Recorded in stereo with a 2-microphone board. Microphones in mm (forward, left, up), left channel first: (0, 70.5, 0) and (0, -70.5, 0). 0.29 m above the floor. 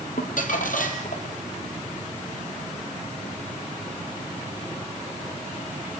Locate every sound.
0.2 s crumpling: 70° left (ahead or behind), 1.7 m